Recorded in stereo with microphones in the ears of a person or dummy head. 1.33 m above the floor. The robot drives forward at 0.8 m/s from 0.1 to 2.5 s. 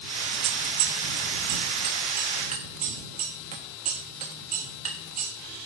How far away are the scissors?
About 1.6 m.